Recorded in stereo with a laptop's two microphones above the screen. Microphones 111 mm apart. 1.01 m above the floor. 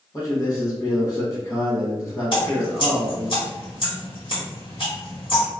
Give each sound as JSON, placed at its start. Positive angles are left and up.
{"t": 0.1, "sound": "a man speaking", "side_deg": 30, "distance_m": 1.1}
{"t": 2.3, "sound": "dripping", "side_deg": 55, "distance_m": 1.7}